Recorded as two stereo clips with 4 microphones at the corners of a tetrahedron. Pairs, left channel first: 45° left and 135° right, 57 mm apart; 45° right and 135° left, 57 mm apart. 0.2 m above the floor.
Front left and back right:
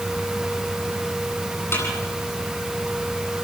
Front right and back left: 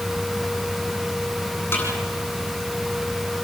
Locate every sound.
1.7 s a snare drum: straight ahead, 10 m